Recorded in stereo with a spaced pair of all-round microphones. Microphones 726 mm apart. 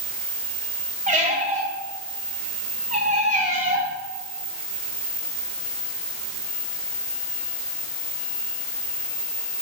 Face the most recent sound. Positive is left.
turn(degrees=-10)  # may be behind; listen again after turning